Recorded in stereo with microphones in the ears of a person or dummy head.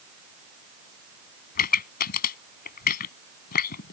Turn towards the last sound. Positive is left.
turn(degrees=55)  # may be behind; listen again after turning